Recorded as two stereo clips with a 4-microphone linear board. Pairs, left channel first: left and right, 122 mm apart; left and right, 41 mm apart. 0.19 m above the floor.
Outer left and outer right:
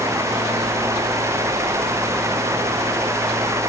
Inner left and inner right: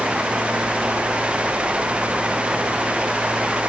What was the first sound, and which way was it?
Only background noise.